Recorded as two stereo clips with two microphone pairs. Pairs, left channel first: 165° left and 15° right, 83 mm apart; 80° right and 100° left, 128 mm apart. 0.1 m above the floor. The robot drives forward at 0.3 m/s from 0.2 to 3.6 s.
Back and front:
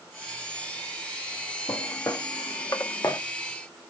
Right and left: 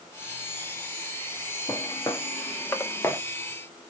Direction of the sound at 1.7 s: 145° right.